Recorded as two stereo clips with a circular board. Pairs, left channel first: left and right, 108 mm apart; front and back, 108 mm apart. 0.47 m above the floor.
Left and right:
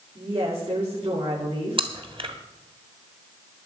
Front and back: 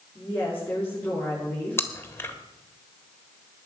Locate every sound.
0.1 s a woman speaking: 80° right, 7.5 m
1.8 s chewing: 65° right, 1.6 m